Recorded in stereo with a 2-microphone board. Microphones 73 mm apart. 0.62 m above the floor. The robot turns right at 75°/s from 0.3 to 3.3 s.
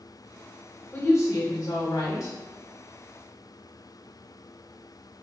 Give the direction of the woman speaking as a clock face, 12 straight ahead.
11 o'clock.